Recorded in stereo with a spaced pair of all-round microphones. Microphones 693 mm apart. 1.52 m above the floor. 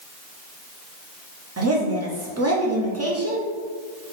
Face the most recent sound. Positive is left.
turn(degrees=-20)  # may be behind; listen again after turning